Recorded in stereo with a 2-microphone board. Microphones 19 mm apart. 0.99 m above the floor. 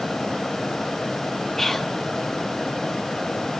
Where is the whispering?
15° left (ahead or behind), 1.2 m.